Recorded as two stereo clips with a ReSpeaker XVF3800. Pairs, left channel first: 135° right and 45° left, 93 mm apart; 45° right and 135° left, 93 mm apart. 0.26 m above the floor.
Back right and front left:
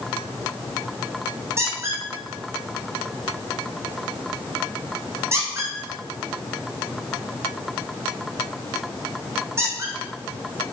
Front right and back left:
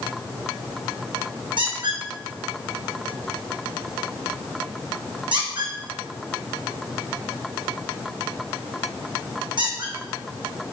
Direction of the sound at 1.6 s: 105° left.